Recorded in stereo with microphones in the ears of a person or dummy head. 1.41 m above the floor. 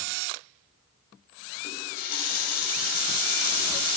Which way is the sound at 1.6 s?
50° left (ahead or behind).